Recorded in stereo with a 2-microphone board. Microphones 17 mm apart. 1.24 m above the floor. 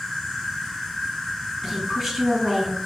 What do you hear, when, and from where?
0.0 s an insect: 35° left (ahead or behind), 1.5 m
1.6 s a woman speaking: 10° right (ahead or behind), 1.6 m